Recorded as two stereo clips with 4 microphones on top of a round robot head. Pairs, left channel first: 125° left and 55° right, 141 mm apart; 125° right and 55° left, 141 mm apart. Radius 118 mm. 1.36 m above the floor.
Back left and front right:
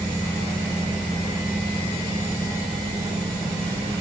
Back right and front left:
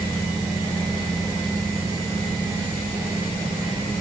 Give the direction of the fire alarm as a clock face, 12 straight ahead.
No fire alarm in this recording.